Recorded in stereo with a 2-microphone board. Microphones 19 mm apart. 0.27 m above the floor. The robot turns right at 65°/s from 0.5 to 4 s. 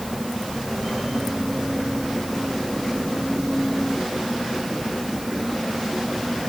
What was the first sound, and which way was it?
Only background noise.